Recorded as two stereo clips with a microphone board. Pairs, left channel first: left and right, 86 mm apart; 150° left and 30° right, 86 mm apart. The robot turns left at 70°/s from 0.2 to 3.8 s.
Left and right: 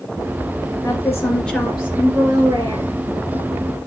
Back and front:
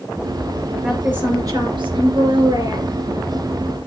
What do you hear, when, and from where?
0.8 s a woman speaking: 60° left, 3.5 m; by 3.0 s 90° right, 3.5 m